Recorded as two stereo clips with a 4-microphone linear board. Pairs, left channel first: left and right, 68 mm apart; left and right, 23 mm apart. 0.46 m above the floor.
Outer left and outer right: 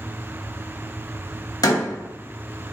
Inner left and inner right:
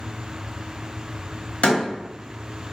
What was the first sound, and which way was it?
A door slam, 70° left (ahead or behind).